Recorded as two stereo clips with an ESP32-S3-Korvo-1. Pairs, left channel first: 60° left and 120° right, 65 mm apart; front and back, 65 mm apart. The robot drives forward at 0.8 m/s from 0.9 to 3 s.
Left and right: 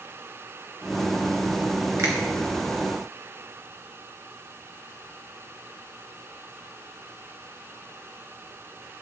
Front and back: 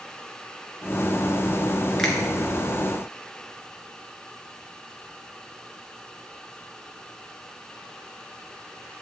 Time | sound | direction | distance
2.0 | a finger snap | 80° right | 3 m